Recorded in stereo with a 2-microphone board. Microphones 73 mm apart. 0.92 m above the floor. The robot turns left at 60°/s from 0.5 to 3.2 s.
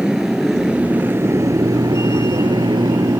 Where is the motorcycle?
10° right (ahead or behind); by 3.2 s 55° right (ahead or behind).